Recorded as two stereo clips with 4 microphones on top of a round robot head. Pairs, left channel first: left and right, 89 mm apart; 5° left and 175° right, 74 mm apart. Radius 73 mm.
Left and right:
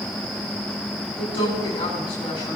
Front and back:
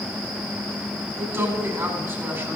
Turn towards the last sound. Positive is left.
turn(degrees=135)